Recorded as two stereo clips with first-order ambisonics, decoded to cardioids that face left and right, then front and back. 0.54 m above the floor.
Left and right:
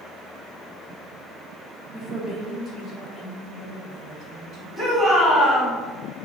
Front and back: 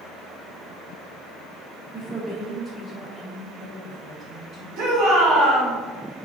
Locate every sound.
1.9 s a woman speaking: 160° left, 1.3 m; by 4.7 s 70° left, 1.7 m
4.8 s a shout: straight behind, 1.7 m